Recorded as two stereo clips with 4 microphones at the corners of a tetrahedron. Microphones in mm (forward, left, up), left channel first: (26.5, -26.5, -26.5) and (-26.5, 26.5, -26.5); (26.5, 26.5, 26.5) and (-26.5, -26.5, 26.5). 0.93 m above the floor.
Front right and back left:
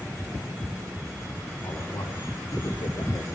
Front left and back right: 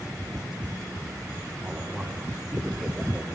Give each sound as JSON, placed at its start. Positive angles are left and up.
{"t": 1.6, "sound": "a man speaking", "azimuth_deg": -40, "distance_m": 3.5}